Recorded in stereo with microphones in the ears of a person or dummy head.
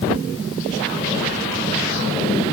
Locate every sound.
Only background noise.